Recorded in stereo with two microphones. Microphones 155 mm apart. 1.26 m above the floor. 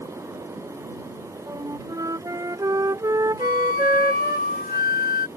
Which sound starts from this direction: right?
A flute, at 1.5 s.